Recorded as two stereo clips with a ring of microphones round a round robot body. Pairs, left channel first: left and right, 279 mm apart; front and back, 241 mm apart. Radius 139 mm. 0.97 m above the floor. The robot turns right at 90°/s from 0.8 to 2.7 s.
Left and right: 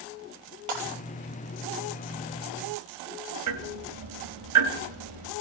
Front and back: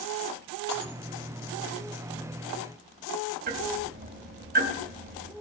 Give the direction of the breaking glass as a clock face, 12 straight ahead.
2 o'clock.